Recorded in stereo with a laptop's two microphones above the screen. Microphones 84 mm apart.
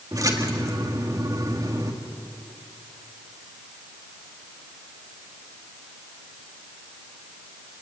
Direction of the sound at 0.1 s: 40° right (ahead or behind).